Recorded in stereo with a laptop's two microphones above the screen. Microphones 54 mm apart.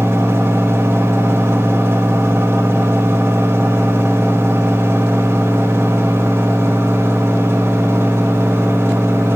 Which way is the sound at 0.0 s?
60° right (ahead or behind).